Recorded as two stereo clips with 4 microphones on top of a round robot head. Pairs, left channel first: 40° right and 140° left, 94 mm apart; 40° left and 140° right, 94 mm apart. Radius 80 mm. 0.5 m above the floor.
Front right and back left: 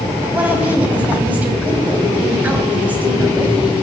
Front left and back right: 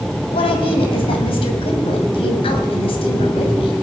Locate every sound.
0.3 s a woman speaking: 65° left, 3 m